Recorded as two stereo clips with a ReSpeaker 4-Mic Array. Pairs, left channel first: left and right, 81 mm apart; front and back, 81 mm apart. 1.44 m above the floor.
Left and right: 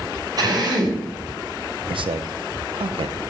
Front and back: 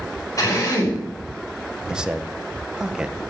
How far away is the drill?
About 6 m.